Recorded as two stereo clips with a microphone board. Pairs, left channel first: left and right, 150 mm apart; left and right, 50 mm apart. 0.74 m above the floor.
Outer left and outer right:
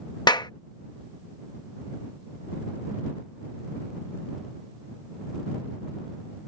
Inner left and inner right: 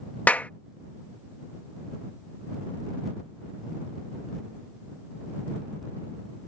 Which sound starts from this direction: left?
A clap, at 0.3 s.